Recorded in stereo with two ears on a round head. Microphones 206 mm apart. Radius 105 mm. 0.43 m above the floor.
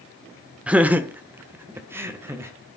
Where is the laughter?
5° right (ahead or behind), 0.8 m; by 2.5 s 10° right (ahead or behind), 2.0 m.